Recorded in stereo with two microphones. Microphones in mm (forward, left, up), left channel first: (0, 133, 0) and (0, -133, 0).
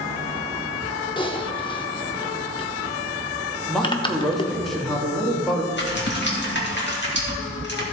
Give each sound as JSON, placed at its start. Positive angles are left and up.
{"t": 1.2, "sound": "typing on a keyboard", "side_deg": 20, "distance_m": 0.8}
{"t": 3.7, "sound": "a man speaking", "side_deg": 0, "distance_m": 1.7}
{"t": 5.7, "sound": "typing on a keyboard", "side_deg": 45, "distance_m": 2.0}